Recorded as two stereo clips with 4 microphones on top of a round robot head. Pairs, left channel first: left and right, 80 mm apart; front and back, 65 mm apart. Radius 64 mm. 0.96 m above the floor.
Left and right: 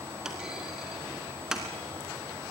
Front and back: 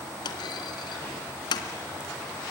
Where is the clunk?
5° right, 2 m.